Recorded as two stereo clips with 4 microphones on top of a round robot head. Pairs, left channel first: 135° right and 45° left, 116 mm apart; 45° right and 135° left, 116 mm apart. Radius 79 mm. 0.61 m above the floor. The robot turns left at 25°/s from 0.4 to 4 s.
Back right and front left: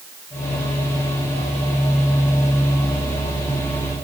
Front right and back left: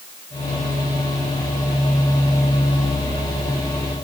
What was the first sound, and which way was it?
Only background noise.